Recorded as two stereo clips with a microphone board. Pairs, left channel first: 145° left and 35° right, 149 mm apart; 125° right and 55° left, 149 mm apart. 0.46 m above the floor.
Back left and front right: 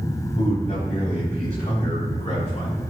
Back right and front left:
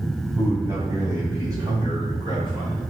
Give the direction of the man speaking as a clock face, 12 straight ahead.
8 o'clock.